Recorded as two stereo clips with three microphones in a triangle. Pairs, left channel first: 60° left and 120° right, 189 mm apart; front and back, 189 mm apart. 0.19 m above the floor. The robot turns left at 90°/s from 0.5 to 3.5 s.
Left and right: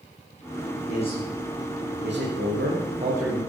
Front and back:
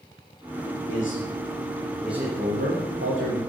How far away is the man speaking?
About 9 m.